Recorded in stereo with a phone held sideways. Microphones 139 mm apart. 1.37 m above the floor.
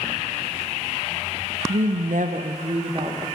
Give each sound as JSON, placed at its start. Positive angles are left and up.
{"t": 1.7, "sound": "a woman speaking", "side_deg": -75, "distance_m": 0.7}